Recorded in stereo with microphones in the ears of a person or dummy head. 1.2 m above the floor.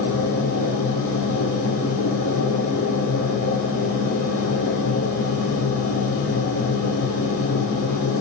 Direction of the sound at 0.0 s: 80° left.